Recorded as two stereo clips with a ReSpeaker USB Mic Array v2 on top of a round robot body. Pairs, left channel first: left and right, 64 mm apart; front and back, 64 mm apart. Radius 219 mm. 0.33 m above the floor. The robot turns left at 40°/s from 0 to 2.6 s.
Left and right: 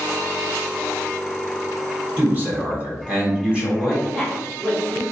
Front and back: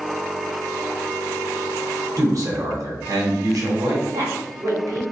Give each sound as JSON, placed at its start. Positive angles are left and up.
{"t": 2.2, "sound": "a man speaking", "azimuth_deg": -145, "distance_m": 1.6}
{"t": 4.1, "sound": "a woman speaking", "azimuth_deg": 180, "distance_m": 1.7}